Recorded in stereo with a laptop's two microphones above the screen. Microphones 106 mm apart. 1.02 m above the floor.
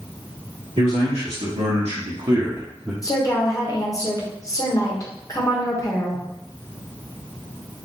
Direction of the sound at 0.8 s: 85° right.